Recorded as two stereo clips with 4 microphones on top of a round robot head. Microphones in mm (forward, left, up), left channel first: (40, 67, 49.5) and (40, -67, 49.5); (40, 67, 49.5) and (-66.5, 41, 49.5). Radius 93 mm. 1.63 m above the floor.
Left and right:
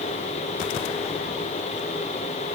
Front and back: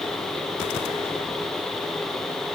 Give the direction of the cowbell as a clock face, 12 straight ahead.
I don't hear a cowbell.